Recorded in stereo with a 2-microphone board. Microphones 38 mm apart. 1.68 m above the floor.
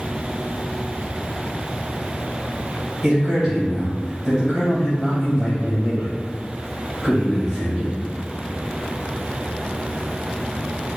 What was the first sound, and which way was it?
A man speaking, 15° left (ahead or behind).